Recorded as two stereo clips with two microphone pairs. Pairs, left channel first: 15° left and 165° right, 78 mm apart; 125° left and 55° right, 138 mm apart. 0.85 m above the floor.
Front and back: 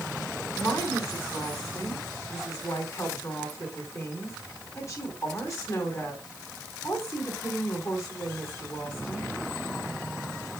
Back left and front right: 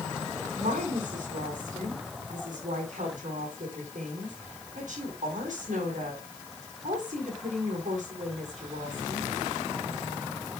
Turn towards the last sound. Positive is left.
turn(degrees=-30)